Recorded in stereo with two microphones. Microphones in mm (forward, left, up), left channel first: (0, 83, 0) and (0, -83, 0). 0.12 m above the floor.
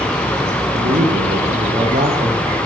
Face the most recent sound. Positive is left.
turn(degrees=-55)  # may be behind; listen again after turning